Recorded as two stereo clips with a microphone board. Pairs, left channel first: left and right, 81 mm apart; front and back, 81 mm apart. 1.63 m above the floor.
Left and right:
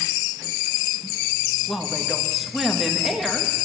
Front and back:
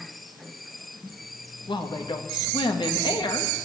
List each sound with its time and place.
1.7 s a woman speaking: straight ahead, 2.5 m